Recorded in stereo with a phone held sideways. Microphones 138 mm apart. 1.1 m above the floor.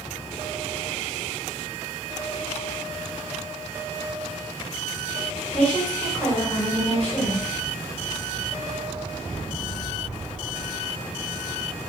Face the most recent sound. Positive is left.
turn(degrees=5)  # may be behind; listen again after turning